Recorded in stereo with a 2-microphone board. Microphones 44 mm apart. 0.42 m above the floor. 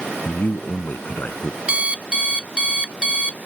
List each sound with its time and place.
0.2 s a man speaking: 45° left (ahead or behind)
1.7 s an alarm clock: 25° right (ahead or behind)